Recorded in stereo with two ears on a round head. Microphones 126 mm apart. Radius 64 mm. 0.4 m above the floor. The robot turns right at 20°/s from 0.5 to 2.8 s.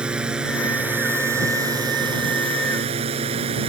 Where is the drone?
5° right (ahead or behind); by 3.7 s 45° right (ahead or behind).